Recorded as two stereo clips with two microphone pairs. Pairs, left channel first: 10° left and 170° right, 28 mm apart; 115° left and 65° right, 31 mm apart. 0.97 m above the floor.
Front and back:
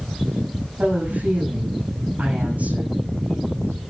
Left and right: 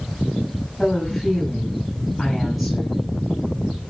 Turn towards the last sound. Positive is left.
turn(degrees=-160)